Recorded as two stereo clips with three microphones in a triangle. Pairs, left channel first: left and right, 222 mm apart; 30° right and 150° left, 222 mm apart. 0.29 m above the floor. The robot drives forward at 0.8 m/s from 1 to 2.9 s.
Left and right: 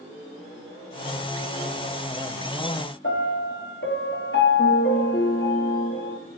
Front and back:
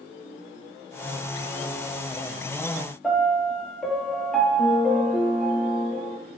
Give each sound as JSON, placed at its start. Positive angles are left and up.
{"t": 3.0, "sound": "a piano", "azimuth_deg": 60, "distance_m": 5.5}